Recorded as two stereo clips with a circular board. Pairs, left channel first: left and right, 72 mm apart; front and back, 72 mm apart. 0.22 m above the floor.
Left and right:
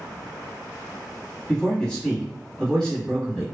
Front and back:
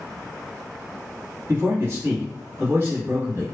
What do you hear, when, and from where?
1.5 s a man speaking: 160° left, 1.5 m